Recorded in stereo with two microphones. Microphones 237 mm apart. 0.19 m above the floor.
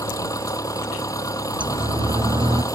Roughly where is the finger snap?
I don't hear a finger snap.